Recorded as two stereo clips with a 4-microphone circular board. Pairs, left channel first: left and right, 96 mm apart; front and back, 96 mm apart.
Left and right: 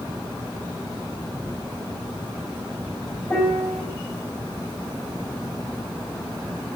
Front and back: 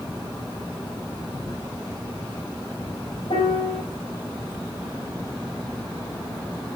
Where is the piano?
25° left, 3 m.